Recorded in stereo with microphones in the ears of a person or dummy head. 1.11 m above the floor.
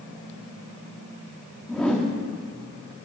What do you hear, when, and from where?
1.7 s a whoosh: 5° left (ahead or behind), 1.3 m